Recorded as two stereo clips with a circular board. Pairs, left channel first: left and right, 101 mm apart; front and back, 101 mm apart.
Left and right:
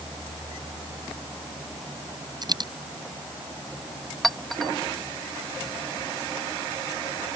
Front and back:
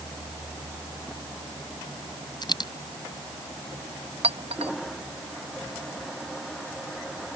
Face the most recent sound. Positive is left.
turn(degrees=180)